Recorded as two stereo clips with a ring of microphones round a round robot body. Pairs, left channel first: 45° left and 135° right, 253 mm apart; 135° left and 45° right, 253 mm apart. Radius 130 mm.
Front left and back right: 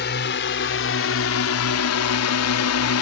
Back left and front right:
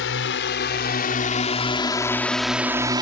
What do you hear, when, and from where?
0.0 s a drone: 95° left; by 3.0 s 25° left